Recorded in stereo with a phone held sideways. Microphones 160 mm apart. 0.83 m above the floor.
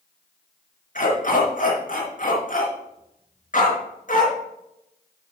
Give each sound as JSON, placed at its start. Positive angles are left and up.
{"t": 0.9, "sound": "a dog barking", "side_deg": 55, "distance_m": 4.0}